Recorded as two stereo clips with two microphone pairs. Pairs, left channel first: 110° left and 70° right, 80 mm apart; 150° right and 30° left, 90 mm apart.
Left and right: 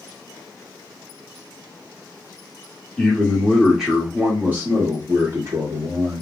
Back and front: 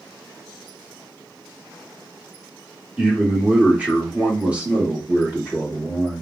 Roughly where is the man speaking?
Left.